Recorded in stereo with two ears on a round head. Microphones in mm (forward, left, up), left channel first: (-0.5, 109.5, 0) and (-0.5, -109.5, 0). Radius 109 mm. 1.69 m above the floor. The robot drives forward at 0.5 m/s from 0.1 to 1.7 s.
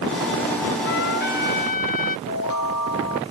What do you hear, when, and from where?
0.8 s a trumpet: 45° left (ahead or behind); by 2.2 s 35° left (ahead or behind)
2.3 s a chime: 85° left